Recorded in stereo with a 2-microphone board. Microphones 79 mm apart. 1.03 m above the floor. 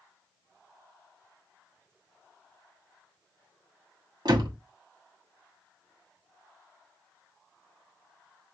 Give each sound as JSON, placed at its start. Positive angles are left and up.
{"t": 4.2, "sound": "a door slam", "side_deg": -60, "distance_m": 1.1}